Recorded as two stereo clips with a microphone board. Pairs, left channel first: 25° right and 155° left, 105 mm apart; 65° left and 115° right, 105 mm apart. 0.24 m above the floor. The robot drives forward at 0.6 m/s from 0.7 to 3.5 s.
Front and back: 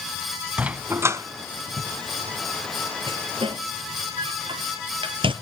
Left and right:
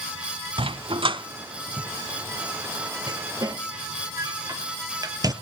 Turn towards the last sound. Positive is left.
turn(degrees=-165)